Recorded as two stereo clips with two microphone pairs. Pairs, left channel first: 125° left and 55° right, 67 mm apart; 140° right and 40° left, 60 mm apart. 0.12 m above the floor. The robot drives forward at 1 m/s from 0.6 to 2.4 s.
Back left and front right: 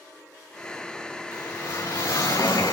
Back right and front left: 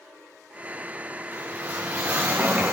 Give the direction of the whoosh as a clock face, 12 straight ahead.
9 o'clock.